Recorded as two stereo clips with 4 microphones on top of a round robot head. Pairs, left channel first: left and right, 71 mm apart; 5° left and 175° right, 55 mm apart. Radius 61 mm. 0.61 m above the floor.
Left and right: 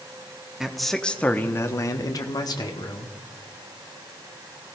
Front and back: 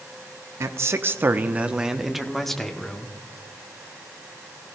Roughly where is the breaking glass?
I don't hear breaking glass.